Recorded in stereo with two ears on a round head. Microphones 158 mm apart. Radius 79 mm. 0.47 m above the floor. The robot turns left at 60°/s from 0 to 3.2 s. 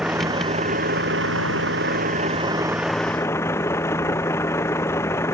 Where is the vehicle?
5° right; by 5.3 s 165° left.